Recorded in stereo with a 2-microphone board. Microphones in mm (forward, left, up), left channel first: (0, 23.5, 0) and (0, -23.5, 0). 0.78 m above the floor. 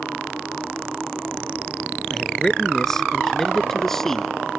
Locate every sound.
2.1 s a man speaking: 5° left (ahead or behind)